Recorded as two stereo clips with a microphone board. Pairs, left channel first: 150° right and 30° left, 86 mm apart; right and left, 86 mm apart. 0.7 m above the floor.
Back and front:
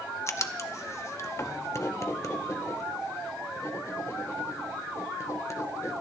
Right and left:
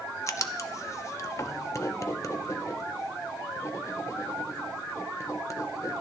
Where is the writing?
115° right, 0.6 m.